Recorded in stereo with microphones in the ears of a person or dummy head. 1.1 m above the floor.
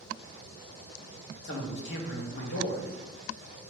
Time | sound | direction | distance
1.4 | a man speaking | 55° left (ahead or behind) | 0.9 m